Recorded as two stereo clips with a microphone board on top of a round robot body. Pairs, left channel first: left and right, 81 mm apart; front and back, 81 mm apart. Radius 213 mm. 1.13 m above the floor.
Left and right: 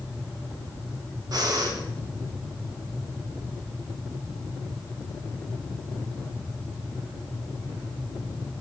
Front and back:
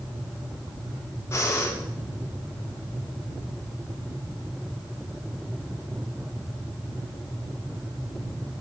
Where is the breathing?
55° right, 3.5 m.